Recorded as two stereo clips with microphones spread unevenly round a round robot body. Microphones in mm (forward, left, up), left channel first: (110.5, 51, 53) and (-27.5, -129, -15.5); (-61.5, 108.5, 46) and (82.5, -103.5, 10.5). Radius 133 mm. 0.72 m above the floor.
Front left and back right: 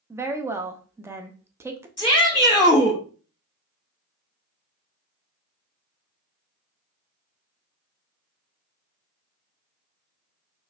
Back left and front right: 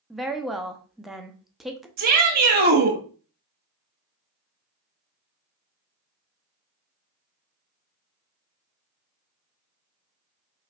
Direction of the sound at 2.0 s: 30° right.